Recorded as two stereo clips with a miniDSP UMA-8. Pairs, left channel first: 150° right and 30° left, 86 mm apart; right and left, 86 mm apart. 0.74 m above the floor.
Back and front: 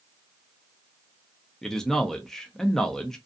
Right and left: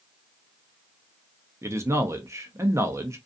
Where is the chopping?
I don't hear chopping.